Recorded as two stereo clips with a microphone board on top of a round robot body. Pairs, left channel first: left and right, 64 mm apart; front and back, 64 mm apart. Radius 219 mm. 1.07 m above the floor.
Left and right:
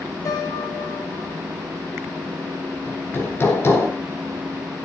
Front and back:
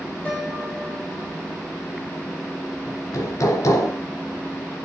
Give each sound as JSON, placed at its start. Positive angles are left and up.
{"t": 0.2, "sound": "a piano", "azimuth_deg": 70, "distance_m": 6.5}
{"t": 2.9, "sound": "hammering", "azimuth_deg": 35, "distance_m": 3.5}